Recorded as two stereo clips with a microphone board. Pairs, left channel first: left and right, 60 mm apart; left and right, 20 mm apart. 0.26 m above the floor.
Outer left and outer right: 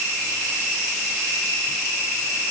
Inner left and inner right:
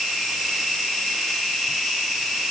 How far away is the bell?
No bell in this recording.